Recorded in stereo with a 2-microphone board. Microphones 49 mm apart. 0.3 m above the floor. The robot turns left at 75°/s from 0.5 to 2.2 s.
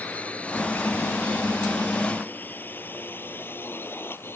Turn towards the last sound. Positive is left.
turn(degrees=45)  # may be behind; listen again after turning